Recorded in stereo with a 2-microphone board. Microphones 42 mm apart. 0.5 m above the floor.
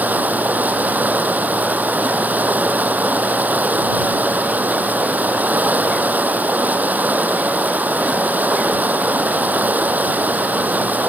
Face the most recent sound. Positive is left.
turn(degrees=-40)  # may be behind; listen again after turning